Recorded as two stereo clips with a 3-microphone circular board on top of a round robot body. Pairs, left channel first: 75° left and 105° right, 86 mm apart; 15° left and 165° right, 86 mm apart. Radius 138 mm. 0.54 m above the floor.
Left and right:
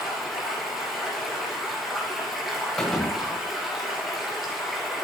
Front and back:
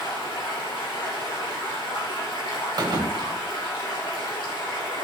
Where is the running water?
15° right, 2.5 m.